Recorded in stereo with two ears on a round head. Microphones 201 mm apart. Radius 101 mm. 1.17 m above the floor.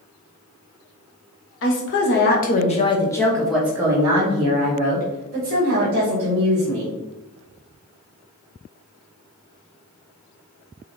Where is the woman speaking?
60° left (ahead or behind), 1.4 m; by 6.9 s 55° right (ahead or behind), 3 m.